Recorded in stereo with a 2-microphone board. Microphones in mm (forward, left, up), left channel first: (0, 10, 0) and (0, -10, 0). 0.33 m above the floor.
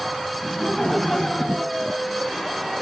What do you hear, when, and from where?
0.4 s laughter: 20° left (ahead or behind), 2.5 m; by 2.6 s 5° left (ahead or behind), 1.3 m